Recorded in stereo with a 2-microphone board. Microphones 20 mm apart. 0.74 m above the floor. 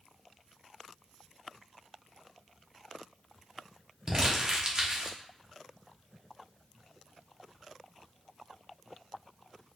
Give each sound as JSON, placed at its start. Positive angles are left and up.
{"t": 4.1, "sound": "crumpling", "side_deg": -35, "distance_m": 0.9}